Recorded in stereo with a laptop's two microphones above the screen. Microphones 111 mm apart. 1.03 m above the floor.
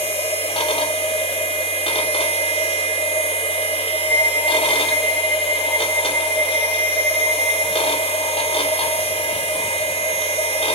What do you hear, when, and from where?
0.0 s a machine running: 55° left (ahead or behind), 3.5 m
4.1 s a flute: 25° left (ahead or behind), 4 m